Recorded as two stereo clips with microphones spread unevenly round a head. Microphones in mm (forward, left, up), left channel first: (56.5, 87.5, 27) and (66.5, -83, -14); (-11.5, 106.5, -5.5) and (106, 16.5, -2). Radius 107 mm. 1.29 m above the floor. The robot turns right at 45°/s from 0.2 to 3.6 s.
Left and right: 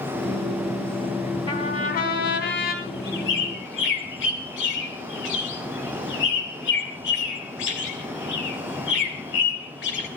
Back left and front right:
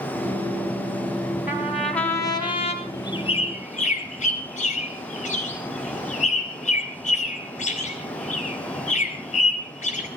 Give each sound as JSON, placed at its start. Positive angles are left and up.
{"t": 1.5, "sound": "a trumpet", "azimuth_deg": 40, "distance_m": 4.0}
{"t": 2.8, "sound": "a bird", "azimuth_deg": 70, "distance_m": 3.0}